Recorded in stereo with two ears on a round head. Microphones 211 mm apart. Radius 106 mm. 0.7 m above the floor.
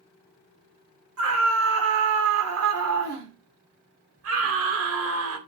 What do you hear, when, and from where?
1.2 s a scream: 65° right (ahead or behind), 2.5 m